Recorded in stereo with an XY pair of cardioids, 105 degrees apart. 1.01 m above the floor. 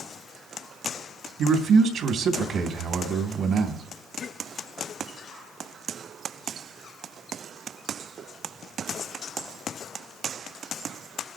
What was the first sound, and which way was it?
A man speaking, 65° right.